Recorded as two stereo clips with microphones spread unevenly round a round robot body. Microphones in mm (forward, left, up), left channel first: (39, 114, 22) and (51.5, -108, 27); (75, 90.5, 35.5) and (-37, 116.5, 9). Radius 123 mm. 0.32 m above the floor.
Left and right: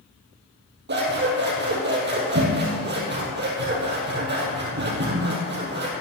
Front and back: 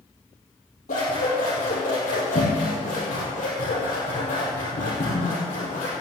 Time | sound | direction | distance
0.9 | scissors | 45° right | 3.5 m